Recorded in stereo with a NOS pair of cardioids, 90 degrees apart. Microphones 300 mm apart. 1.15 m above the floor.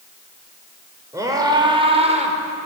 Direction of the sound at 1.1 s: 10° right.